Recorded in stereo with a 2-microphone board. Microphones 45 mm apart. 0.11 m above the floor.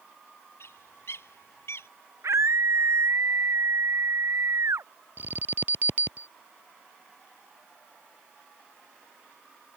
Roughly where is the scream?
Right.